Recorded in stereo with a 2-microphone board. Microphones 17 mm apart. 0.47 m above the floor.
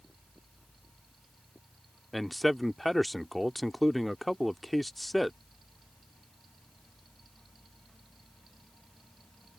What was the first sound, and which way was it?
A man speaking, 10° left (ahead or behind).